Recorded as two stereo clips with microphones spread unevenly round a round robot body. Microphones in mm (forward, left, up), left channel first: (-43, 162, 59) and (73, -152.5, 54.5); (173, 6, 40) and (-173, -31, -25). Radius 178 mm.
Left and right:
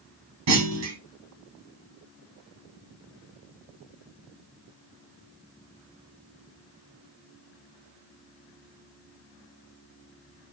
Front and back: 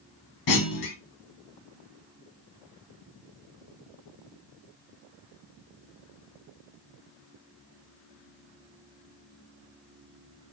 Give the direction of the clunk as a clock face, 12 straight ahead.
1 o'clock.